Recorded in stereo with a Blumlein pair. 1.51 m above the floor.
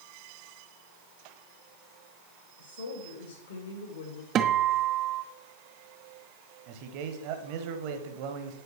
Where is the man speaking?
45° right, 1.2 m.